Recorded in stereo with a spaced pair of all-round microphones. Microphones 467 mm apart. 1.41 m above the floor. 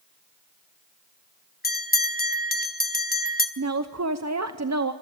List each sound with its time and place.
1.6 s a bell: 20° left (ahead or behind), 1.1 m
3.6 s a woman speaking: 35° right (ahead or behind), 0.8 m